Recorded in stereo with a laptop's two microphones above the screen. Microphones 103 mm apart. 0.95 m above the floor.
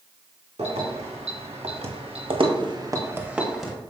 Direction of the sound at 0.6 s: 80° right.